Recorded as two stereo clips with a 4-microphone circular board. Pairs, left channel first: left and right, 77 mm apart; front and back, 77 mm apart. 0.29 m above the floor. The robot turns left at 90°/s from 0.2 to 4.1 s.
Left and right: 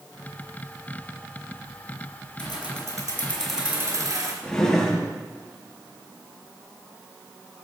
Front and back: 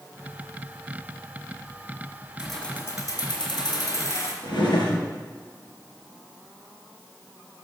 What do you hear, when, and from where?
2.4 s keys jangling: 100° left, 2.5 m; by 4.3 s 55° right, 2.5 m
4.4 s a drawer: 10° left, 3 m